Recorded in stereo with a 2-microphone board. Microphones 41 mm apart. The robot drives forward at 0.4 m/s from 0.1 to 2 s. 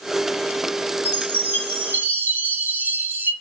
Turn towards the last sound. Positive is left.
turn(degrees=-55)  # may be behind; listen again after turning